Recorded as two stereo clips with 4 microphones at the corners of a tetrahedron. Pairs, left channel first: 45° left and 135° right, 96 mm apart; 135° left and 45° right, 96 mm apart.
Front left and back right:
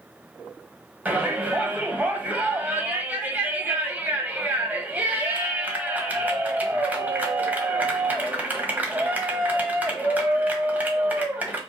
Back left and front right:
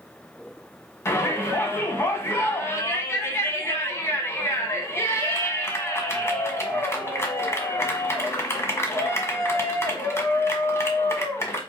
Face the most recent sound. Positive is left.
turn(degrees=165)